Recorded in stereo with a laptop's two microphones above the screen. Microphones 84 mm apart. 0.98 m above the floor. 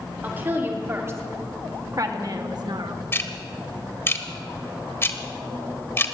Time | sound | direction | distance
0.2 | a woman speaking | 25° right (ahead or behind) | 3.5 m
3.1 | ticking | 30° left (ahead or behind) | 1.0 m